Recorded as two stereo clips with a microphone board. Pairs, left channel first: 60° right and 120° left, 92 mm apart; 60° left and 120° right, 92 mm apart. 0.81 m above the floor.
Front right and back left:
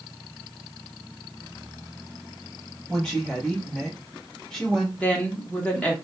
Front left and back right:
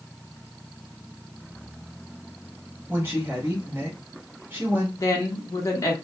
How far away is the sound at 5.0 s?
About 0.9 m.